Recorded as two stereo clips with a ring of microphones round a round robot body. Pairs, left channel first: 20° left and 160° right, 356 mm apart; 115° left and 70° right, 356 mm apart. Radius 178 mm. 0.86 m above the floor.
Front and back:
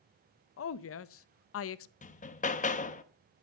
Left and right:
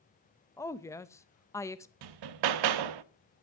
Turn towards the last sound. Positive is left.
turn(degrees=-45)